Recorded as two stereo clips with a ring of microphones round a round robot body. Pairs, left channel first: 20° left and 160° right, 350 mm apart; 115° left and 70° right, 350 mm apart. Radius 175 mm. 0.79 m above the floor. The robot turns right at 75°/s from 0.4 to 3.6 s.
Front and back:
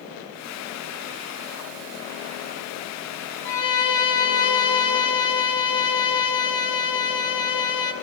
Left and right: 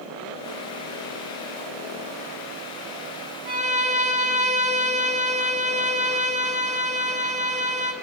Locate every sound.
3.5 s a violin: 10° right, 1.3 m; by 7.9 s 5° left, 1.3 m